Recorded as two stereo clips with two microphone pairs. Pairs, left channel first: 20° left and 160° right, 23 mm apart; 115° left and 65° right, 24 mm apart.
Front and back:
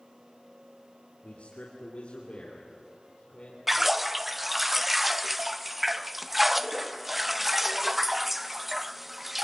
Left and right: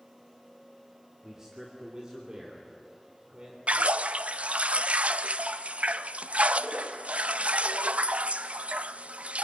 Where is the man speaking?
Straight ahead, 2.5 m; by 3.6 s 25° right, 3.5 m.